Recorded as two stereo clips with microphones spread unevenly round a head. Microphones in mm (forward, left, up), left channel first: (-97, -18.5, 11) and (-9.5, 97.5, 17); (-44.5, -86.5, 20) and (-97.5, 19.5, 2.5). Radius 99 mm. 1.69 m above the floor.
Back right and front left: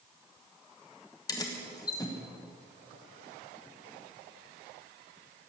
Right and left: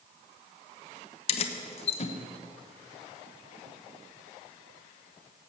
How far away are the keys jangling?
About 1.1 m.